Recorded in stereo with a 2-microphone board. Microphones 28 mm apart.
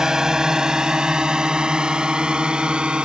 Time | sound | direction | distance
0.0 | a drone | 20° right (ahead or behind) | ?